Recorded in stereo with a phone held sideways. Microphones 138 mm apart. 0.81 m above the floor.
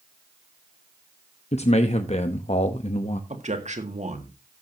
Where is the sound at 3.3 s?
60° right (ahead or behind), 1.8 m.